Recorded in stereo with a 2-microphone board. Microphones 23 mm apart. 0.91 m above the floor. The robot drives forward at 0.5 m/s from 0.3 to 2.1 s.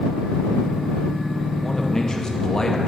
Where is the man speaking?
25° left (ahead or behind), 0.8 m; by 2.9 s 30° left (ahead or behind), 0.7 m.